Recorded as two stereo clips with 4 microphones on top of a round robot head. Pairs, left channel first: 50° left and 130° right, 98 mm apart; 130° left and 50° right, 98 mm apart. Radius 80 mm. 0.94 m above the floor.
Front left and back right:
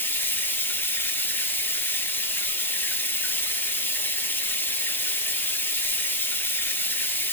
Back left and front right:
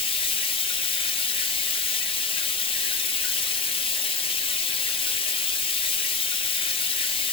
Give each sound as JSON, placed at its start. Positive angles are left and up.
{"t": 0.0, "sound": "running water", "azimuth_deg": 115, "distance_m": 0.9}